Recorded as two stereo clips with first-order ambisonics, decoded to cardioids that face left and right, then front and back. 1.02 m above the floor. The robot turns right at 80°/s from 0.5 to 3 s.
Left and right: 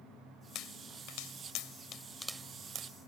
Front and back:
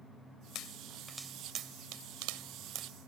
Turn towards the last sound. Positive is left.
turn(degrees=-120)